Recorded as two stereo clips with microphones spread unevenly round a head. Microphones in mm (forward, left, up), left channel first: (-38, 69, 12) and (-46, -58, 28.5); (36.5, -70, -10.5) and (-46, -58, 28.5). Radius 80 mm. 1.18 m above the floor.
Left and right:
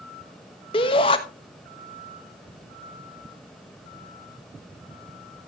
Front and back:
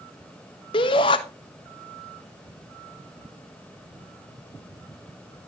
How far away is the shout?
About 1.1 m.